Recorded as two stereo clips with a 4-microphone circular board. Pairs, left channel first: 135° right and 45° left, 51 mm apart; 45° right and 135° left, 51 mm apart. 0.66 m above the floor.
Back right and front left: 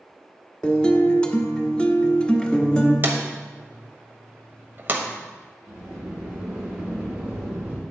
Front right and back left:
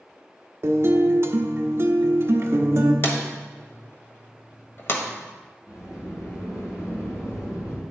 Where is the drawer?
5° right, 1.3 m.